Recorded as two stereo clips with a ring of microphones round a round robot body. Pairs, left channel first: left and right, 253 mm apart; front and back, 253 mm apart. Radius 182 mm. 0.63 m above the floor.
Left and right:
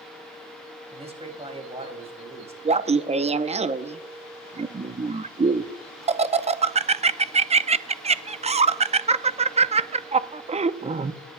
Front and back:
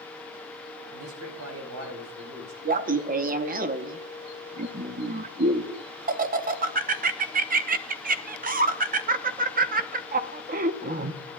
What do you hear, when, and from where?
0.9 s a man speaking: 155° right, 4.5 m
2.6 s laughter: 145° right, 0.7 m